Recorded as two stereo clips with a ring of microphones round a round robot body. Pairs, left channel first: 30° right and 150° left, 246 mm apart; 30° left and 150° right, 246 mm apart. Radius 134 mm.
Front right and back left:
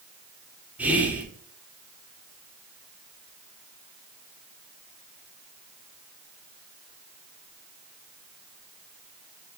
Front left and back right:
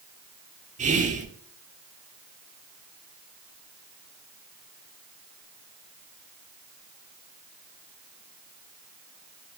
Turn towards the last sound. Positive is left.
turn(degrees=-130)